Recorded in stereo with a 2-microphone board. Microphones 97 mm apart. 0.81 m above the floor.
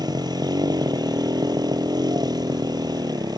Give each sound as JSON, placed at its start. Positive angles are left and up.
{"t": 0.0, "sound": "a motorcycle", "side_deg": -45}